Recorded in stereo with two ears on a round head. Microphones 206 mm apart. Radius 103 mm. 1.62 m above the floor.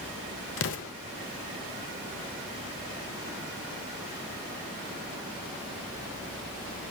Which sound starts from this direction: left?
An explosion, at 0.6 s.